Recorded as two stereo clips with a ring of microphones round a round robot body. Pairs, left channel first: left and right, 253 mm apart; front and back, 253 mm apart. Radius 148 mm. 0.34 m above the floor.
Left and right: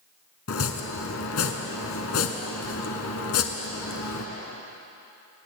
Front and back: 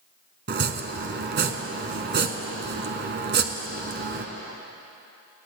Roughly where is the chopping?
Behind left.